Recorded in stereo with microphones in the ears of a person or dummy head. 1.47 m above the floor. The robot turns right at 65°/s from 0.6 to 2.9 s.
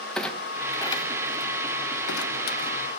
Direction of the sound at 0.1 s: 5° left (ahead or behind).